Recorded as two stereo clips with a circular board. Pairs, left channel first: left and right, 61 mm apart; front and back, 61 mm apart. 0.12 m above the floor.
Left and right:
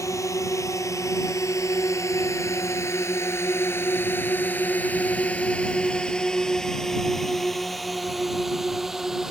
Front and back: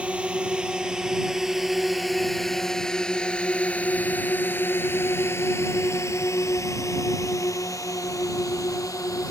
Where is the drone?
110° left; by 9.3 s 5° right.